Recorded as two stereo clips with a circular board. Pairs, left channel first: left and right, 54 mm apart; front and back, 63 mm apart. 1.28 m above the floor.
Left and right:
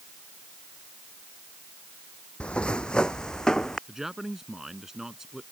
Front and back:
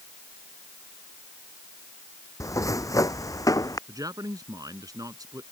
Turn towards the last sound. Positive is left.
turn(degrees=-170)